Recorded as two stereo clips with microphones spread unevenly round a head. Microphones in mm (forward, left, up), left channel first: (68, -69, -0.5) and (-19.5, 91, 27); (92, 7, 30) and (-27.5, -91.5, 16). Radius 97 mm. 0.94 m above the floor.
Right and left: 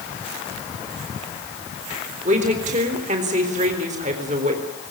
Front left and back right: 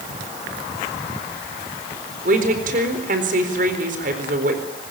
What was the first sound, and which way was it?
A woman speaking, 175° left.